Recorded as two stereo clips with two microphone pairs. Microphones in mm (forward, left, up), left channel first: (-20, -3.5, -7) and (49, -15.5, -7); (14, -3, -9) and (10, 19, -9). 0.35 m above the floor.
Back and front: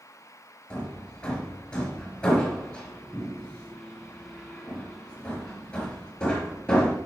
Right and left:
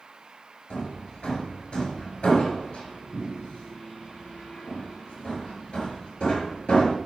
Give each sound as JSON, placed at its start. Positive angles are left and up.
{"t": 0.7, "sound": "hammering", "azimuth_deg": -115, "distance_m": 4.5}